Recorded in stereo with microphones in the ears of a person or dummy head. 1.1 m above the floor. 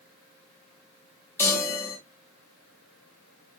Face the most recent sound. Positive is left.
turn(degrees=10)  # may be behind; listen again after turning